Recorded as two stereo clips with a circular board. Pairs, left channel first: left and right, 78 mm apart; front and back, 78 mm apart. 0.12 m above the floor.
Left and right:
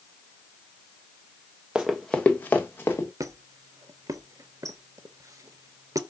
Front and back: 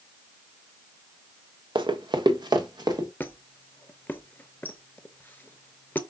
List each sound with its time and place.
1.8 s running footsteps: 170° right, 0.6 m; by 3.1 s 150° left, 1.6 m
3.2 s a squeak: 60° right, 0.6 m